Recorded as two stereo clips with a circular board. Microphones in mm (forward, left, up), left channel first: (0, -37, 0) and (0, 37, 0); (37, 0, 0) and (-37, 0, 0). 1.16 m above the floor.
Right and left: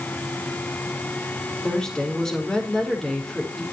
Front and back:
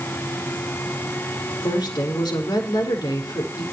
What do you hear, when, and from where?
1.6 s a woman speaking: 5° right, 4.5 m